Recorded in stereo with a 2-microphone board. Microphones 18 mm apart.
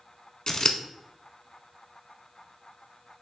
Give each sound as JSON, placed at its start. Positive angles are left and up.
{"t": 0.5, "sound": "scissors", "side_deg": 40, "distance_m": 0.7}